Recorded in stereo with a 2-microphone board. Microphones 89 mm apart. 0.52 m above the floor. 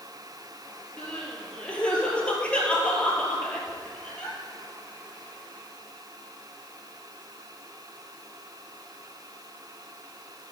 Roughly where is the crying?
Centre.